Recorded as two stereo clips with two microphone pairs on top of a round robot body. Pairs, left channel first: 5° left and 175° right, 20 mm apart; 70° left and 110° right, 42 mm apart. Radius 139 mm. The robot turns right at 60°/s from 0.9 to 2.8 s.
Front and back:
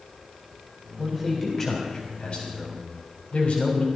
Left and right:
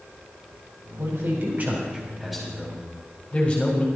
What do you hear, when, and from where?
1.0 s a man speaking: 105° right, 3.5 m; by 3.9 s 5° left, 3.5 m